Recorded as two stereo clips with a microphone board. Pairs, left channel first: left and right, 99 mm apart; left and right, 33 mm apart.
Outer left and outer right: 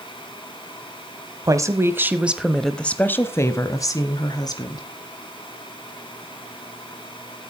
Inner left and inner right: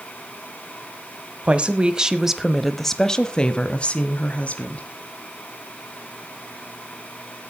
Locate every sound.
1.4 s a woman speaking: 35° right (ahead or behind), 1.2 m; by 4.9 s 45° left (ahead or behind), 2 m